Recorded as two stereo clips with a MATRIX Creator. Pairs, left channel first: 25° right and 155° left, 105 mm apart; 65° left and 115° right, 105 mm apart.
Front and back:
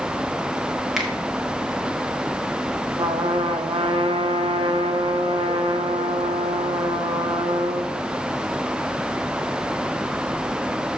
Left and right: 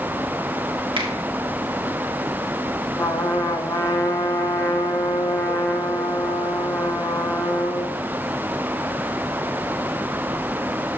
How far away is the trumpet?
About 1.1 m.